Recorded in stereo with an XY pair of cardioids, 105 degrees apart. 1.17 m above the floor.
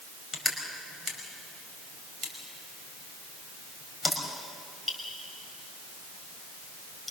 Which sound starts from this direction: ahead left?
Crushing, at 0.3 s.